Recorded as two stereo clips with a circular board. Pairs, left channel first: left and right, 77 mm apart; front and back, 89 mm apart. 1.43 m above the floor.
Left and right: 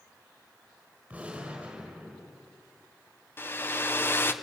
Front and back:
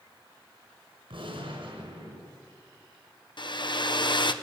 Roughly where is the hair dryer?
Ahead left.